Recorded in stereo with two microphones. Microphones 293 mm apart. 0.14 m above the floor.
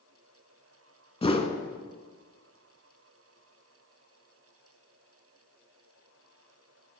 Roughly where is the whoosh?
Centre.